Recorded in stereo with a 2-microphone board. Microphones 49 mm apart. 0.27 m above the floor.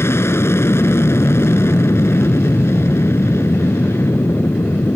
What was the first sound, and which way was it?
An aircraft, 60° left (ahead or behind).